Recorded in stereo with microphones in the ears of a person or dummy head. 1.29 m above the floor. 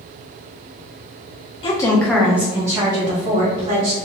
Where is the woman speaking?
35° left (ahead or behind), 0.8 m; by 4.0 s 30° right (ahead or behind), 1.8 m.